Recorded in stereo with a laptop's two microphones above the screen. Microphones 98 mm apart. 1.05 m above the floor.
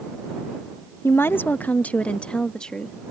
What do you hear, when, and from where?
1.0 s a woman speaking: 25° left (ahead or behind); by 3.0 s 5° left (ahead or behind)